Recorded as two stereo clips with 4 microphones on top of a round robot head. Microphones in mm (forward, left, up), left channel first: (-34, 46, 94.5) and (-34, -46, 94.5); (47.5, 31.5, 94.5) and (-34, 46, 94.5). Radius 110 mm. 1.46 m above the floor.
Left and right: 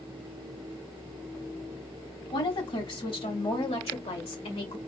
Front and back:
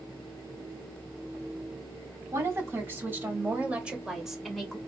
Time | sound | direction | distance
2.3 | a woman speaking | 115° left | 3 m